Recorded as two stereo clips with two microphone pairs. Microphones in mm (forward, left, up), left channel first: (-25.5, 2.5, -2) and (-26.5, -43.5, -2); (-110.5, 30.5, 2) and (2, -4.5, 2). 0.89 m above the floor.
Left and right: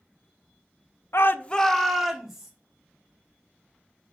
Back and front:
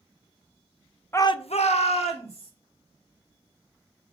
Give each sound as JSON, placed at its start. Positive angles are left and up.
{"t": 1.1, "sound": "a shout", "azimuth_deg": 100, "distance_m": 0.6}